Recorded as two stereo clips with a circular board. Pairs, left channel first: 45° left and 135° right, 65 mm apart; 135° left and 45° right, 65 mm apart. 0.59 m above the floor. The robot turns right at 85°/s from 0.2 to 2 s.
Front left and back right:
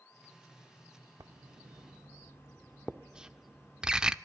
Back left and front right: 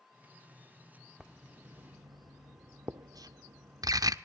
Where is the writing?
125° right, 0.6 m; by 4.1 s 60° right, 0.6 m.